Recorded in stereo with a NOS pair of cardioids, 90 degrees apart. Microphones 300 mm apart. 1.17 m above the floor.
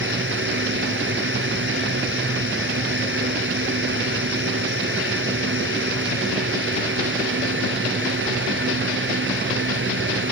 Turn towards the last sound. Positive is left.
turn(degrees=-40)